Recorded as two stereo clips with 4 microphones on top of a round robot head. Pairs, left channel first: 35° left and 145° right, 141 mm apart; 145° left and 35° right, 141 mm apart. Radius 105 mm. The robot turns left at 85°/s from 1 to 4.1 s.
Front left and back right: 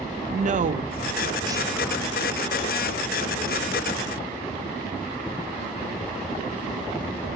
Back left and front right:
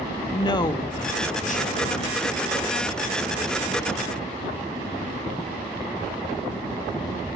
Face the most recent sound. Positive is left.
turn(degrees=-65)